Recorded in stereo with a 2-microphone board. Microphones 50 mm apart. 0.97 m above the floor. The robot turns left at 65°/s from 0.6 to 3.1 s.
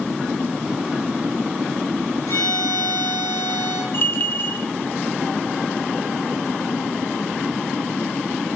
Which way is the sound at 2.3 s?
120° left.